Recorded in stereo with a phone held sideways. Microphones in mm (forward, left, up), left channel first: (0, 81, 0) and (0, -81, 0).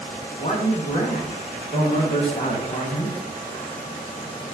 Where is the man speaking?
40° left (ahead or behind), 0.7 m.